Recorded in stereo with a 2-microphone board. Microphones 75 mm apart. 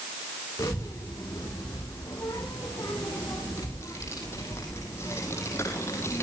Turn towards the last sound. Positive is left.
turn(degrees=40)  # may be behind; listen again after turning